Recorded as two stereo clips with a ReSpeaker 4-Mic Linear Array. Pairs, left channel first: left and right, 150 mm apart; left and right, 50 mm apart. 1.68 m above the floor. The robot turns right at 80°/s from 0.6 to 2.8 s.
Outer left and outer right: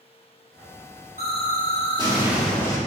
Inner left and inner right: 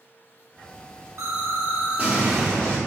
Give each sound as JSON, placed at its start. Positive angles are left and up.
{"t": 1.2, "sound": "an explosion", "azimuth_deg": -100, "distance_m": 3.0}